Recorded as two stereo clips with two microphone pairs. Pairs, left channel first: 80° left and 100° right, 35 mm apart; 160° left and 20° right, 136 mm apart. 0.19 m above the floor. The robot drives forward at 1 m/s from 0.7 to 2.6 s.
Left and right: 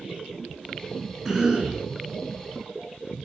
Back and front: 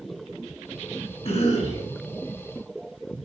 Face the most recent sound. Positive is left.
turn(degrees=-175)